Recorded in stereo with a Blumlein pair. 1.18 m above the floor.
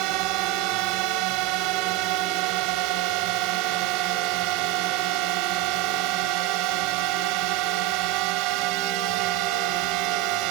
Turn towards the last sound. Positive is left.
turn(degrees=-40)